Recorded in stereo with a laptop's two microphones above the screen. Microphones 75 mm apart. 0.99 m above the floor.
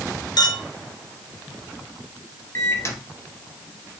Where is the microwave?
40° left (ahead or behind), 0.6 m.